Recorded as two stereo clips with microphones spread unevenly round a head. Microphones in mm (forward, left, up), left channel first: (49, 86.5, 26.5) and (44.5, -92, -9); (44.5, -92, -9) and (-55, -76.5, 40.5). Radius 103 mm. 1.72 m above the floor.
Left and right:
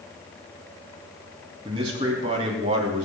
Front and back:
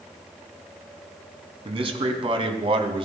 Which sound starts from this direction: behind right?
A man speaking, at 1.6 s.